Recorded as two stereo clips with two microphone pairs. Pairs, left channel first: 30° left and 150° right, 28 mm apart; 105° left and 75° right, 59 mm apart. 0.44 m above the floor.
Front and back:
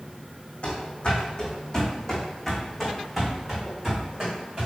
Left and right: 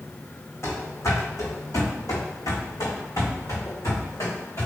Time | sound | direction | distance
0.6 | running footsteps | 75° left | 1.7 m